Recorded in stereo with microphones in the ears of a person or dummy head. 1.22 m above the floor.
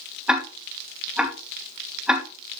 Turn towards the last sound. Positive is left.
turn(degrees=-5)  # may be behind; listen again after turning